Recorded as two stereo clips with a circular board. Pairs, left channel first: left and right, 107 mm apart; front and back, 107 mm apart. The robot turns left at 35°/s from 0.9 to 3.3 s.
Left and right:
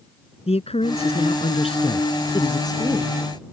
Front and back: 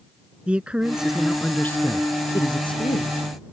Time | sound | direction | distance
0.5 | a man speaking | 100° left | ?